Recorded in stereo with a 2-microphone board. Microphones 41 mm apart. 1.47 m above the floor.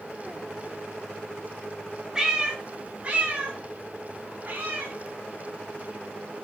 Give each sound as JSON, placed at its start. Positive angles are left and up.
{"t": 2.1, "sound": "a cat meowing", "side_deg": -15, "distance_m": 1.8}